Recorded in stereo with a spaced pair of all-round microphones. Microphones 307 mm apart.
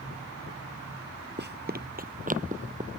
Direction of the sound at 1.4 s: 35° right (ahead or behind).